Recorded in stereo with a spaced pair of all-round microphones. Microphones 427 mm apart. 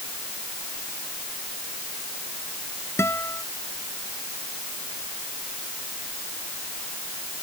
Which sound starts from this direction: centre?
A guitar, at 3.0 s.